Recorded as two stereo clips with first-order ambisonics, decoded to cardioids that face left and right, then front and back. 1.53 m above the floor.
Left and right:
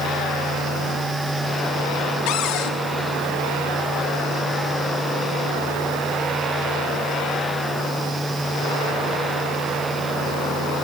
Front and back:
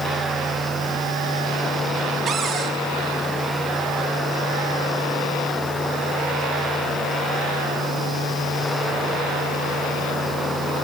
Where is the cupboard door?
115° left, 2.5 m.